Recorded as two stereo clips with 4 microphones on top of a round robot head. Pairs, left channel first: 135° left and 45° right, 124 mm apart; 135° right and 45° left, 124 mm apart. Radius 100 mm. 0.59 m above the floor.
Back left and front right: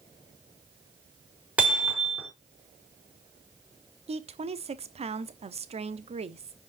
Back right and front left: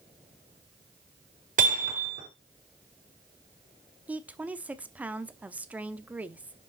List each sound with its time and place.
1.6 s hammering: 35° left, 5.5 m
4.1 s a woman speaking: 30° right, 1.1 m